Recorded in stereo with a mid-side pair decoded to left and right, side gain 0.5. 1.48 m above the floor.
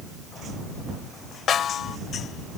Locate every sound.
1.5 s a snare drum: 55° left